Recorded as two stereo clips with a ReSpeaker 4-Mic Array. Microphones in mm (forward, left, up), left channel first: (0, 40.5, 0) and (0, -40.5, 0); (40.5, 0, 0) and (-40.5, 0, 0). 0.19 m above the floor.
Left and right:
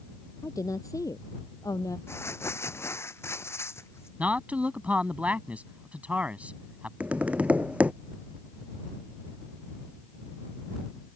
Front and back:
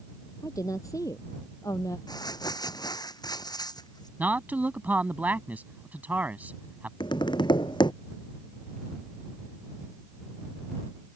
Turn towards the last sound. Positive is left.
turn(degrees=-15)